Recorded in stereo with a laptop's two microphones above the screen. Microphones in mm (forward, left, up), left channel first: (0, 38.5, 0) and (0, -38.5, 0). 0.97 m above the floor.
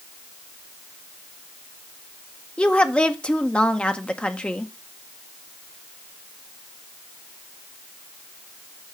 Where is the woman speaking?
15° left (ahead or behind), 0.6 m.